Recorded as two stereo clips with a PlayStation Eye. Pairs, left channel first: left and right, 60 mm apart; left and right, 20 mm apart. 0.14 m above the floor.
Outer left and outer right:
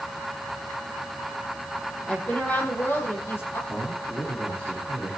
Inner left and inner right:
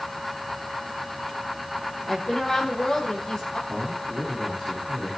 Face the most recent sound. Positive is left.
turn(degrees=25)  # may be behind; listen again after turning